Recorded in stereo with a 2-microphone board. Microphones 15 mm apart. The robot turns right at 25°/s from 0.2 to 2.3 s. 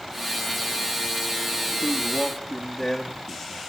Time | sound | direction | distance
1.8 | a man speaking | 30° left (ahead or behind) | 2.5 m